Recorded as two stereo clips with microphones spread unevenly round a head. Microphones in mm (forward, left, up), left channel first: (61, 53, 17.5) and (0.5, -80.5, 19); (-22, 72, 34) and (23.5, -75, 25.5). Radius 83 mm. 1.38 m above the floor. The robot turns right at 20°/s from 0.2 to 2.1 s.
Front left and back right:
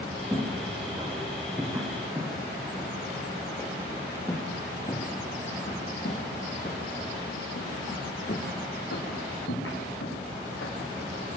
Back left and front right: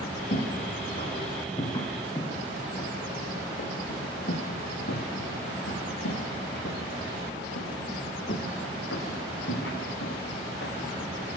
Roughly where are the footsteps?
Behind left.